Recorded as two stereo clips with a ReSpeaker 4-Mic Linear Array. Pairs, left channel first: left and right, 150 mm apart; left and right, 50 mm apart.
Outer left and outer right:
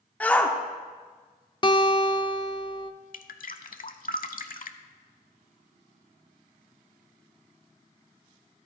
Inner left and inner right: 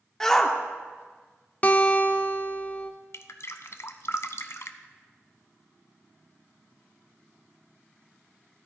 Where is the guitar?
30° left (ahead or behind), 0.5 m.